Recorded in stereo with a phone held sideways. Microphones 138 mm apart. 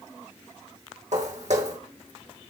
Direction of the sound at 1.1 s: 65° right (ahead or behind).